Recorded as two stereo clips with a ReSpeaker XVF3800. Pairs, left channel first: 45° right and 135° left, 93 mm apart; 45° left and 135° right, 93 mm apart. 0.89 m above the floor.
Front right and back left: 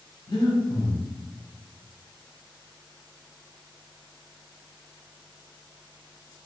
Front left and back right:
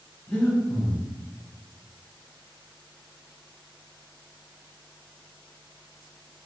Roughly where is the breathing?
Ahead.